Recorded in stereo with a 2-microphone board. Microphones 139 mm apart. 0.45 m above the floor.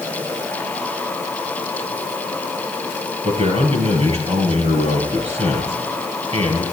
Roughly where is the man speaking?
Right.